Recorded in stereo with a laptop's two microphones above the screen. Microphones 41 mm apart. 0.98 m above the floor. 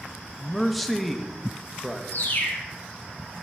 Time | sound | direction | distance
0.4 | a man speaking | centre (ahead or behind) | 0.7 m
2.1 | a bird | 45° left (ahead or behind) | 1.1 m